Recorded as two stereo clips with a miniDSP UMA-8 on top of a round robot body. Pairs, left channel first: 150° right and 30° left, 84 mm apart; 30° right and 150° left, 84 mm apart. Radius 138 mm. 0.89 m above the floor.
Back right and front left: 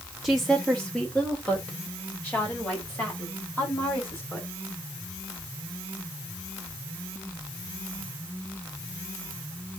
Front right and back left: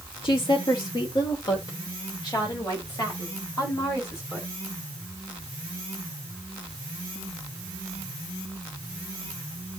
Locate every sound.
0.2 s a woman speaking: 55° right, 1.6 m; by 4.5 s 85° right, 7 m